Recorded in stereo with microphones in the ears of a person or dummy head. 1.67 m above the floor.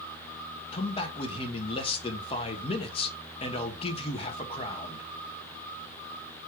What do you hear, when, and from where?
0.7 s a man speaking: 35° left (ahead or behind), 1.1 m